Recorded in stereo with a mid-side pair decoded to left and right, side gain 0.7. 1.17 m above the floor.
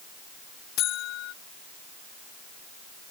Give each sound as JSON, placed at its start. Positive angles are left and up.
{"t": 0.8, "sound": "a buzzer", "azimuth_deg": 55}